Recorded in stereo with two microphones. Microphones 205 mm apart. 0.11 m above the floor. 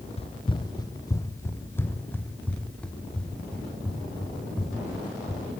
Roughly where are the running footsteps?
Left.